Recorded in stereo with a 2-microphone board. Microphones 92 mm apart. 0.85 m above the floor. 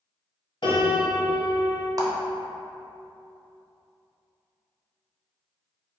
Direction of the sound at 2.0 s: 40° right (ahead or behind).